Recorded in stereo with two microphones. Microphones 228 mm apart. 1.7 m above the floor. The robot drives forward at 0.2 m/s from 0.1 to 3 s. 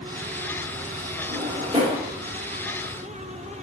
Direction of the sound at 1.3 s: 20° right (ahead or behind).